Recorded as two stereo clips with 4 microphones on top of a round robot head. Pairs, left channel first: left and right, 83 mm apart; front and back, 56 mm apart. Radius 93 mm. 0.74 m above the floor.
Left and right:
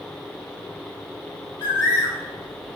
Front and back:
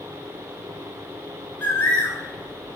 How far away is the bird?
About 5.5 m.